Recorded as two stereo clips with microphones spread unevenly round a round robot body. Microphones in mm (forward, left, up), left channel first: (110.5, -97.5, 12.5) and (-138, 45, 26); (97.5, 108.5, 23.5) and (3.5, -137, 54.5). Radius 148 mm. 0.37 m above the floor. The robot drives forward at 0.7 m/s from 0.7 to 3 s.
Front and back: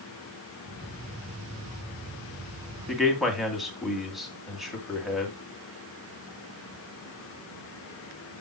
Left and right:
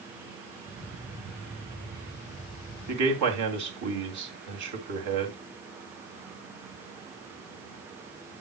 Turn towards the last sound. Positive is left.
turn(degrees=-120)